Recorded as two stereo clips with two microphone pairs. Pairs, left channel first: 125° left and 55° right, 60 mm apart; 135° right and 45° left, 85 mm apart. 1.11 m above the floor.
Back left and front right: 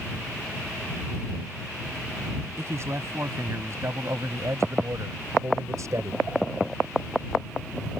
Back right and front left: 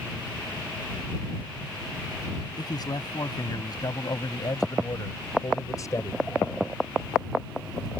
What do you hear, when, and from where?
2.6 s a man speaking: 95° right; by 6.2 s 80° right